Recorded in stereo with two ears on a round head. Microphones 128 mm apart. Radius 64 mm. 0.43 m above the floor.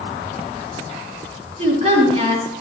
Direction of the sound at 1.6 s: 40° right (ahead or behind).